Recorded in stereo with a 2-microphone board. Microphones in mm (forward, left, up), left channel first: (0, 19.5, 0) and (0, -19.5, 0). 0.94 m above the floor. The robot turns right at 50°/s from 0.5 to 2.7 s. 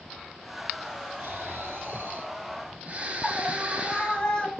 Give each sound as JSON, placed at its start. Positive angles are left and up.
{"t": 1.2, "sound": "snoring", "azimuth_deg": -110, "distance_m": 4.5}
{"t": 3.2, "sound": "a scream", "side_deg": 20, "distance_m": 6.5}